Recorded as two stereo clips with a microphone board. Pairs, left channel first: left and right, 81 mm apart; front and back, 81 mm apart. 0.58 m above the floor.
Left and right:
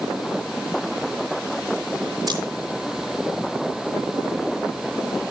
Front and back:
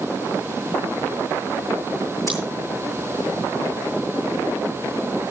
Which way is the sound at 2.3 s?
60° right.